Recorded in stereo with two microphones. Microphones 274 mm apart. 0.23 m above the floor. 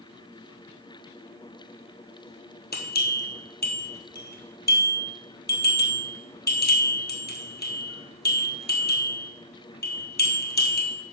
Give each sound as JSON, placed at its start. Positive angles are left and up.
{"t": 2.7, "sound": "a bell", "side_deg": 35, "distance_m": 1.5}